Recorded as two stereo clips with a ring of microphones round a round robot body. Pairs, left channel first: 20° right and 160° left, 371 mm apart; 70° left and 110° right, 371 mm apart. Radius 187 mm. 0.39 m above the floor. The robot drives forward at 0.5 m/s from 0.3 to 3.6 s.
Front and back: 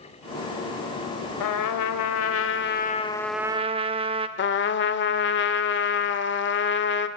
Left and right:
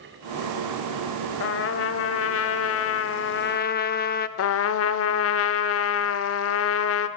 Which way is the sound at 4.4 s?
30° left.